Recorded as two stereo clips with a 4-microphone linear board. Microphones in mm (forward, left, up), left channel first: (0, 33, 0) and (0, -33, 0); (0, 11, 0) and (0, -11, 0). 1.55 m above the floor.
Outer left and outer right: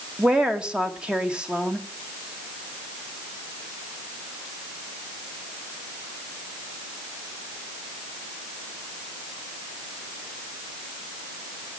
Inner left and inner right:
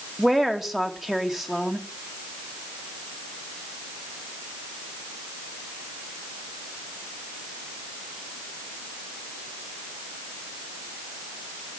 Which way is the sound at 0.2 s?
15° right (ahead or behind).